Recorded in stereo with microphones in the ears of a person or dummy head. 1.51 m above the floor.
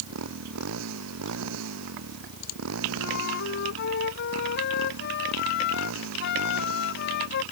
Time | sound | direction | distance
0.0 | a motorcycle | 80° right | ?
3.0 | a flute | 60° left (ahead or behind) | ?